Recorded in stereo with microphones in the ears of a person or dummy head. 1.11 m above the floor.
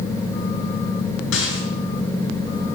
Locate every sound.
1.3 s a rattle: 80° left, 5.5 m